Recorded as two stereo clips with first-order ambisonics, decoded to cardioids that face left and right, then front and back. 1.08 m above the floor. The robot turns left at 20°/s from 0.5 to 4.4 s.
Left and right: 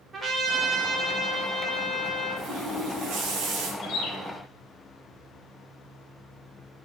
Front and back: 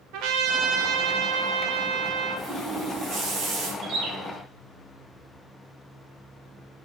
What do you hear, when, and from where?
0.1 s a trumpet: 160° right, 1.8 m; by 2.5 s 160° left, 1.8 m
2.4 s a running tap: 100° right, 3 m; by 3.7 s 130° right, 3 m
3.8 s a bird: 140° left, 3 m; by 4.1 s 130° left, 3 m